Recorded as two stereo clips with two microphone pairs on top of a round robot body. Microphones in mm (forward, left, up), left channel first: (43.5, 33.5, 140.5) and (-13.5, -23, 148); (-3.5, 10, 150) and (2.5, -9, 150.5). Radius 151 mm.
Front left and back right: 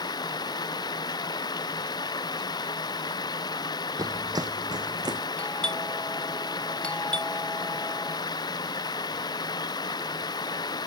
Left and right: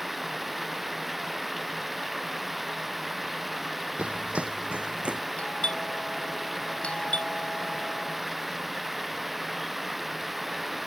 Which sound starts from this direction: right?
Running footsteps, at 4.0 s.